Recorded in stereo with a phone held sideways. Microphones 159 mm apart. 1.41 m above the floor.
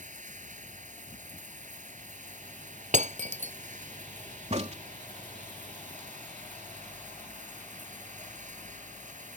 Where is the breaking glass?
50° right (ahead or behind).